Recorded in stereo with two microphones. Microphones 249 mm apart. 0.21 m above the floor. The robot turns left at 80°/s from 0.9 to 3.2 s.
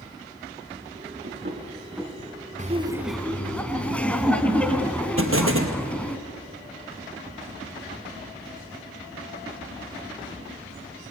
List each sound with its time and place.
1.2 s knocking: 50° right (ahead or behind), 2.0 m; by 2.2 s 5° left (ahead or behind), 2.0 m
2.6 s laughter: 140° right, 1.9 m; by 6.2 s 175° left, 1.9 m
5.2 s an explosion: 55° right (ahead or behind), 2.5 m